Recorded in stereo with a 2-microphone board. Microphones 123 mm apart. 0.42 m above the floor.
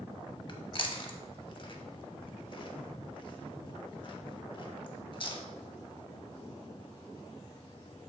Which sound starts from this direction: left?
Chewing, at 0.5 s.